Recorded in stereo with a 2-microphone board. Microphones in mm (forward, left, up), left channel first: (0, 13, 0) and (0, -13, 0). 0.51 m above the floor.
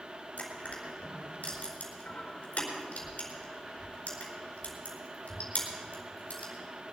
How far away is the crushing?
About 4.5 m.